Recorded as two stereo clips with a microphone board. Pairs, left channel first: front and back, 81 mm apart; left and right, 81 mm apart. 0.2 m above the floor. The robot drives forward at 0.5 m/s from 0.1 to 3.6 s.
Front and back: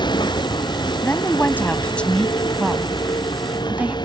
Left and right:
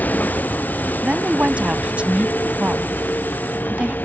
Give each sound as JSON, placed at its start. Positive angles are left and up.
{"t": 0.0, "sound": "a vehicle", "azimuth_deg": 20}
{"t": 1.0, "sound": "a woman speaking", "azimuth_deg": -25}